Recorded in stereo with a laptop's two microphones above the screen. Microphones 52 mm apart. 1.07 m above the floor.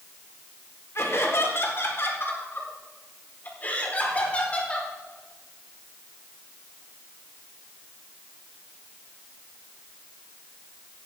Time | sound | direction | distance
0.9 | laughter | 65° left (ahead or behind) | 4 m